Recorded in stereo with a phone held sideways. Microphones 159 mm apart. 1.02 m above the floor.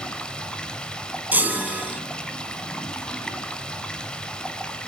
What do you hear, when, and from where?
0.0 s running water: 5° left (ahead or behind), 1.4 m
1.3 s a chime: 10° right (ahead or behind), 1.3 m